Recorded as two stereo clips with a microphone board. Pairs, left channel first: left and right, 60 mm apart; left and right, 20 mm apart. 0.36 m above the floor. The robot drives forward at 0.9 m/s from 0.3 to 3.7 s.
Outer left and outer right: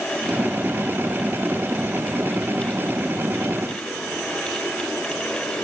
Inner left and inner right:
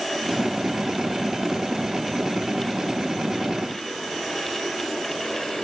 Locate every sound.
Only background noise.